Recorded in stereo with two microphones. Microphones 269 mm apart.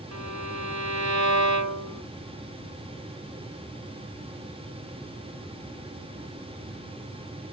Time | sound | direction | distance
0.1 | a violin | 85° right | ?